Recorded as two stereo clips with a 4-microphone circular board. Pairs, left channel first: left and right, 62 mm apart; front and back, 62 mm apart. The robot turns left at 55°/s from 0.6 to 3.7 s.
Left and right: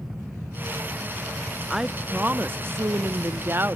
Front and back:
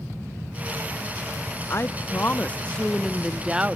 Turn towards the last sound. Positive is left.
turn(degrees=-120)